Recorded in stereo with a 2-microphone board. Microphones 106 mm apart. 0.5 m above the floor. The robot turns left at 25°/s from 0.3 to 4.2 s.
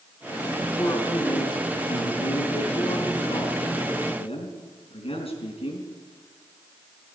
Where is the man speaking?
155° left, 4.5 m; by 5.9 s 70° left, 4.5 m.